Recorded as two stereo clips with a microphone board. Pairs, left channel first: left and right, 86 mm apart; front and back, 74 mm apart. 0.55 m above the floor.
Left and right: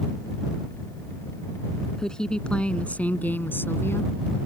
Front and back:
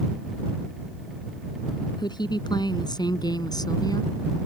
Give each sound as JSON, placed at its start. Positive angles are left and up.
{"t": 2.0, "sound": "a woman speaking", "azimuth_deg": 5}